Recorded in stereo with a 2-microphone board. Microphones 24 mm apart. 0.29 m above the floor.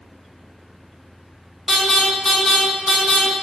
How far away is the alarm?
About 1.3 m.